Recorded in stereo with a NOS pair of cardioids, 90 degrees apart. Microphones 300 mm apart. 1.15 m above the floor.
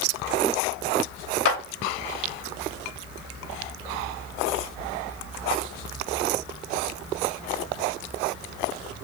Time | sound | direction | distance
1.4 | a clap | 50° left | 0.7 m